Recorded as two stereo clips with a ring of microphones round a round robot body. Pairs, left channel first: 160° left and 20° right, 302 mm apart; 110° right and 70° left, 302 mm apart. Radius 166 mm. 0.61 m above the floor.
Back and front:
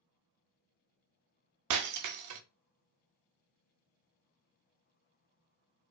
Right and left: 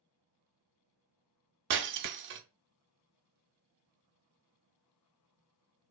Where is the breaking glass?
15° left, 0.5 m.